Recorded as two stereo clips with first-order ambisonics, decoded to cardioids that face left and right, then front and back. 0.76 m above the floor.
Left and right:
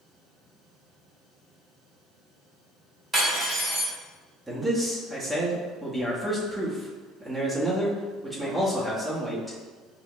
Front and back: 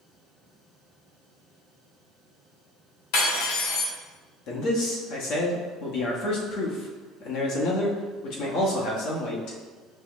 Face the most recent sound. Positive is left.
turn(degrees=0)